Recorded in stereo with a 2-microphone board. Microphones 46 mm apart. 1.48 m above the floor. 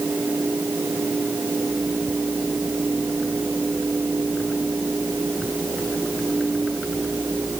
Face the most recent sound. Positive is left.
No sound to turn to.